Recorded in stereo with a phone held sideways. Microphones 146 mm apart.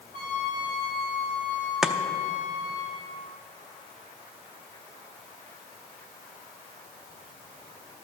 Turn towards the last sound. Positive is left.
turn(degrees=-5)  # may be behind; listen again after turning